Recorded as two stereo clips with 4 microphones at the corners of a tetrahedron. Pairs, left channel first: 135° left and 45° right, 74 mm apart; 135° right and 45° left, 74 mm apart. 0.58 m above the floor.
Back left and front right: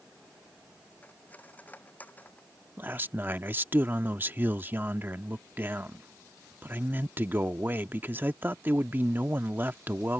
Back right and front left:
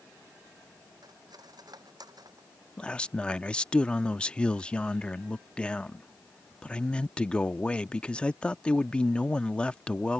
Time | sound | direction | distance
1.0 | cutlery clinking | 70° left | ?
2.8 | a man speaking | 70° right | ?